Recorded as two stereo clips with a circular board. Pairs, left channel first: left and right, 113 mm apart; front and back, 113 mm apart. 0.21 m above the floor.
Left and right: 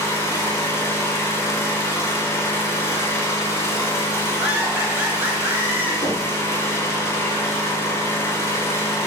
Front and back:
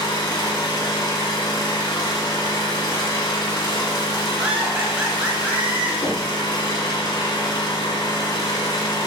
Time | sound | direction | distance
0.0 | an engine running | 35° left | 0.8 m
4.4 | laughter | 125° right | 1.0 m
6.0 | knocking | 45° left | 1.8 m